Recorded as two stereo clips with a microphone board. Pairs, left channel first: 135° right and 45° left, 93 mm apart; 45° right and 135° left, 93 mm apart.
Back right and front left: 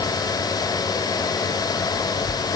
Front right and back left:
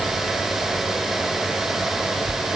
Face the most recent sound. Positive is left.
No sound to turn to.